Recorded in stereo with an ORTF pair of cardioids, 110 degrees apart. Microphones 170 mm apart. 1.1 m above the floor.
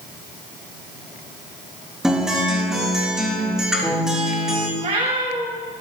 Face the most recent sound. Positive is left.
turn(degrees=-45)